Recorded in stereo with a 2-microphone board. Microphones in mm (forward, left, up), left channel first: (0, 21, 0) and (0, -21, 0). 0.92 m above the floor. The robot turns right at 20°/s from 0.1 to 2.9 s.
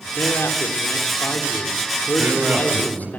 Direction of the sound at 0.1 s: 80° left.